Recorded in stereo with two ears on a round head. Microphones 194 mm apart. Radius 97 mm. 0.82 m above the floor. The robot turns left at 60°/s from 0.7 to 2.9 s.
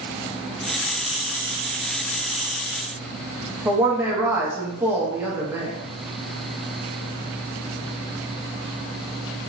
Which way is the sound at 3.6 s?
10° right (ahead or behind).